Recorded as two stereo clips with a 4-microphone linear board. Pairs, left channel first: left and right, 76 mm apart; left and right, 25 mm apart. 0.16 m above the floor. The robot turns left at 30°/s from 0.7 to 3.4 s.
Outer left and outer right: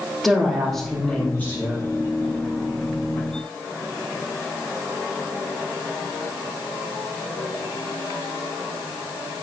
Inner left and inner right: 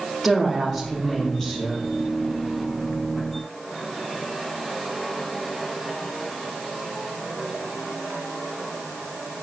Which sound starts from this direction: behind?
A woman speaking, at 0.2 s.